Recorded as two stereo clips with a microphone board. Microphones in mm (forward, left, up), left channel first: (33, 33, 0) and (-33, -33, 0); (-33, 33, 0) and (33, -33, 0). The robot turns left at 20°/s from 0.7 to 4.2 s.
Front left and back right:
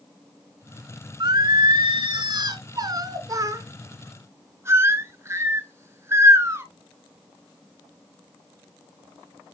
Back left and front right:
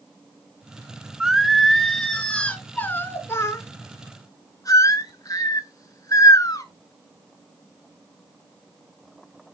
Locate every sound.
1.2 s singing: 125° right, 0.7 m; by 6.7 s 175° left, 0.7 m